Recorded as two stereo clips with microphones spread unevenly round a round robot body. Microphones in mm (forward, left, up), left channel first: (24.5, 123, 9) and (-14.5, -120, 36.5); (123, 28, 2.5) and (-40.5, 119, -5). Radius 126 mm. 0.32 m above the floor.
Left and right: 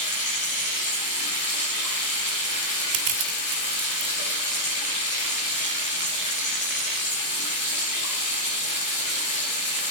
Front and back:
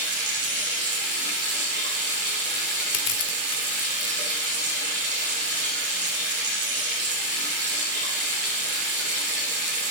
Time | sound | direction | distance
0.0 | running water | 130° left | 8 m
2.9 | crushing | 65° right | 2 m